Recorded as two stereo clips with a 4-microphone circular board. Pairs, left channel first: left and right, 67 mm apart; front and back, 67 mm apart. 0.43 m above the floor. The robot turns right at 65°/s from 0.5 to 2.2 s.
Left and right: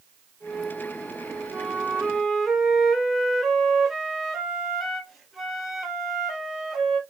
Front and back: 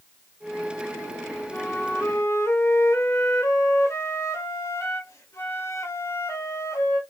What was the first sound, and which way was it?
A flute, 45° right.